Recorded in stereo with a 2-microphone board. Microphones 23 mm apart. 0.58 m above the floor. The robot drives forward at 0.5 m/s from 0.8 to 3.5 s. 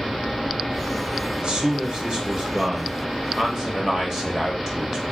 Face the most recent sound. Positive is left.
turn(degrees=-25)  # may be behind; listen again after turning